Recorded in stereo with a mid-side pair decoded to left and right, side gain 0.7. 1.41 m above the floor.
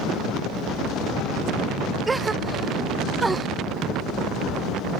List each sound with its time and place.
2.1 s a gasp: 15° right, 0.6 m